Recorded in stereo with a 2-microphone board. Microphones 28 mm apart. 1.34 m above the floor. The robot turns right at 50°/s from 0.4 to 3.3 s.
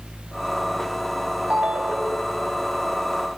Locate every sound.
1.5 s a ringtone: 60° right, 4.5 m; by 2.4 s 15° right, 4.5 m